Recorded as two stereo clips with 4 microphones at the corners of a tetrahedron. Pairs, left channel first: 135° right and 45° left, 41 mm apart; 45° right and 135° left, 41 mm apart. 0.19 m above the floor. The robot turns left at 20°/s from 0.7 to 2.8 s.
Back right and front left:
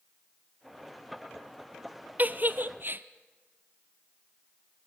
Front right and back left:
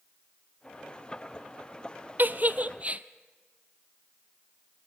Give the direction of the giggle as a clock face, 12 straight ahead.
9 o'clock.